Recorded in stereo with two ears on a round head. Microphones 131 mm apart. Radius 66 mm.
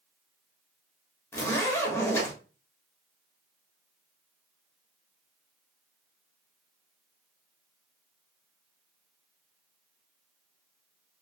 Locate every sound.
1.3 s a zipper: 20° left (ahead or behind), 0.8 m